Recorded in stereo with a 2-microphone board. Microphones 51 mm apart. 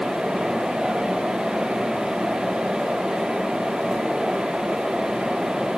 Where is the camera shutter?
No camera shutter in this recording.